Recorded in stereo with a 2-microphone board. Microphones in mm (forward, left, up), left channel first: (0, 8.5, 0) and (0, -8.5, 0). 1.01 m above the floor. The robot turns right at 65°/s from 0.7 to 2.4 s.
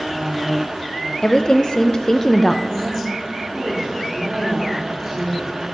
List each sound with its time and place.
1.2 s a woman speaking: 75° left, 0.5 m; by 2.6 s 155° left, 0.5 m
2.7 s a woman speaking: 45° right (ahead or behind), 2 m